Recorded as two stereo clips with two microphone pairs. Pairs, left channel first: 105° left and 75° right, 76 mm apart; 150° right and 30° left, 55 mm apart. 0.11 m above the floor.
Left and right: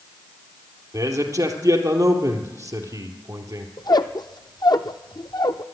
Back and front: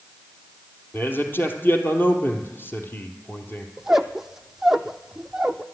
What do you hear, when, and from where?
0.9 s a man speaking: 105° right, 2 m
3.8 s a squeak: 120° left, 0.7 m